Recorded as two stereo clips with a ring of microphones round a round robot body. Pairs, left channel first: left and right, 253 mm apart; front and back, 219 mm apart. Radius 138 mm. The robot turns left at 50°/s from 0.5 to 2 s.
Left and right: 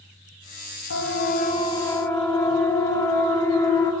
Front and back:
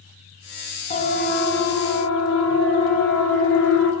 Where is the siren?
55° left, 4 m; by 3.9 s 15° left, 6.5 m.